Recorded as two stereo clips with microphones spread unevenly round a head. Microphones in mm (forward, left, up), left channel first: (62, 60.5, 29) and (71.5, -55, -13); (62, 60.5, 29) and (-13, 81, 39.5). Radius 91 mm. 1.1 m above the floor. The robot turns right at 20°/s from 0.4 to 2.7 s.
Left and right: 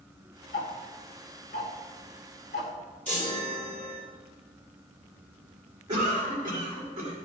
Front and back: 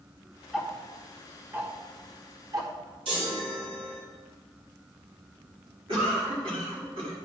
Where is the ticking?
80° left, 1.4 m; by 2.7 s 120° left, 1.4 m.